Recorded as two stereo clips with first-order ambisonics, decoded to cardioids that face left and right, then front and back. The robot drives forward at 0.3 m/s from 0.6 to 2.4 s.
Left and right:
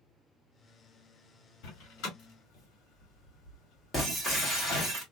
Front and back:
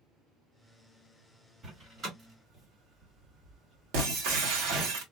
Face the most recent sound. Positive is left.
turn(degrees=170)